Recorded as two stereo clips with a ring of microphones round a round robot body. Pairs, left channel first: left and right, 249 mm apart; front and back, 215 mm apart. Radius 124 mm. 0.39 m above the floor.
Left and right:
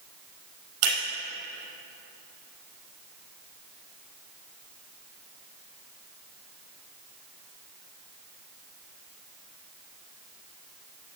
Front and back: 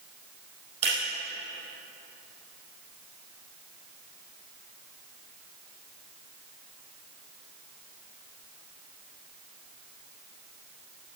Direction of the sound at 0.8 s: 110° right.